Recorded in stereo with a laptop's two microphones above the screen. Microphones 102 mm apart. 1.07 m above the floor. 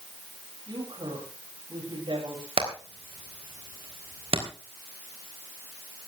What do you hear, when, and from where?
0.7 s a woman speaking: 55° right (ahead or behind), 6.5 m
2.6 s hammering: 75° right (ahead or behind), 3.5 m